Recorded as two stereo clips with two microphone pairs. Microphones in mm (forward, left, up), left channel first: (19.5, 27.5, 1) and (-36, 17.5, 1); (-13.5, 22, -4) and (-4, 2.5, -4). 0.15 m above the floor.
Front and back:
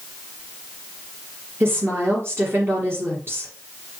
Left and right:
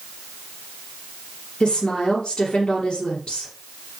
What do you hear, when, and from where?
1.6 s a woman speaking: 150° left, 3 m